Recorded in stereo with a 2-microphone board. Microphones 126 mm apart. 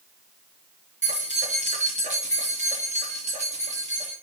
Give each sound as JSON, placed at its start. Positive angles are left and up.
{"t": 1.0, "sound": "keys jangling", "side_deg": -70, "distance_m": 3.5}